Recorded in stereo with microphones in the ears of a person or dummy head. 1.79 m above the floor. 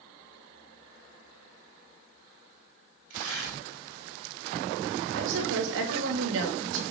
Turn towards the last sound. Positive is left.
turn(degrees=-75)  # may be behind; listen again after turning